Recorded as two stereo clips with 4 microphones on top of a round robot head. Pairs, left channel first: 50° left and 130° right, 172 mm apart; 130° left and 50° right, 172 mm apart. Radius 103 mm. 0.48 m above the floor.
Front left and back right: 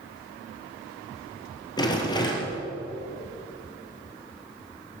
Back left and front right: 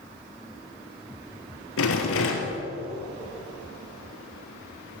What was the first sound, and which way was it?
A rattle, 115° left.